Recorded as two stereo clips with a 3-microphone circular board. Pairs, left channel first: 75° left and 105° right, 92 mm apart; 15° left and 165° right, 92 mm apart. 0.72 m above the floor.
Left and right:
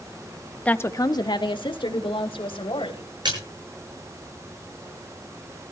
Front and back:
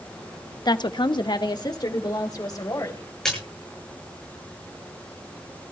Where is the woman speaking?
Straight ahead, 0.8 m; by 3.1 s 65° left, 3.5 m.